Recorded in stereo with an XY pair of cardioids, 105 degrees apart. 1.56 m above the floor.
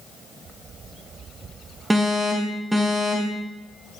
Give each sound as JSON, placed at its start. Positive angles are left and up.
{"t": 1.9, "sound": "an alarm", "azimuth_deg": -15, "distance_m": 3.5}